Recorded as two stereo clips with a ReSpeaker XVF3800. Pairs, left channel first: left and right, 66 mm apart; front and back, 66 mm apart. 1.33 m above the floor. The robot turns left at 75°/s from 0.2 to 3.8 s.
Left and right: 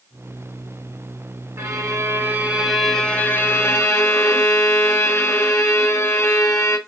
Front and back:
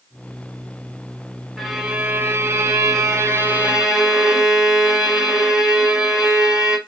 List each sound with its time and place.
1.6 s a violin: 85° right, 0.8 m; by 6.8 s 105° left, 0.8 m